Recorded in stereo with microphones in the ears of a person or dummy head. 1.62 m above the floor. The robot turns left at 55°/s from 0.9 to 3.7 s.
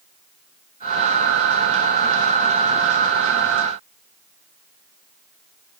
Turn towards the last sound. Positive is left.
No sound to turn to.